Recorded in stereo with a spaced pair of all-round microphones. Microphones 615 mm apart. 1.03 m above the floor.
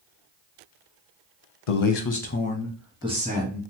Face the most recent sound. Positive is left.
turn(degrees=-15)  # may be behind; listen again after turning